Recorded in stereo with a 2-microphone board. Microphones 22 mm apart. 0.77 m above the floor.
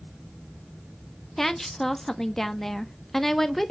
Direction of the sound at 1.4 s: 20° left (ahead or behind).